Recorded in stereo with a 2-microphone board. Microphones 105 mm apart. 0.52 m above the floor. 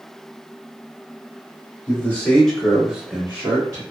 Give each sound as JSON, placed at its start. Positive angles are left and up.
{"t": 1.9, "sound": "a man speaking", "side_deg": 25, "distance_m": 1.4}